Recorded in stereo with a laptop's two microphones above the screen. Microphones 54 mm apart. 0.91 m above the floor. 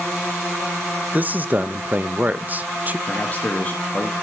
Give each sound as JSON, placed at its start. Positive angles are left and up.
{"t": 1.1, "sound": "a man speaking", "side_deg": -30, "distance_m": 0.9}
{"t": 3.1, "sound": "a man speaking", "side_deg": 30, "distance_m": 1.8}